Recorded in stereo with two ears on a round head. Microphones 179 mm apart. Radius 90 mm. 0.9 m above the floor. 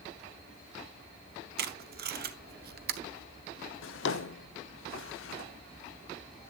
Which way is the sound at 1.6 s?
50° right (ahead or behind).